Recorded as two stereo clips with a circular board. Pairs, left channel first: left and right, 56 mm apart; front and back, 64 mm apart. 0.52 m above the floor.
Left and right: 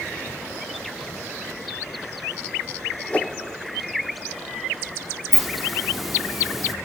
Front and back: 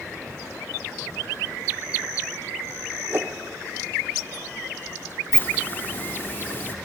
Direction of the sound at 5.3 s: 5° right.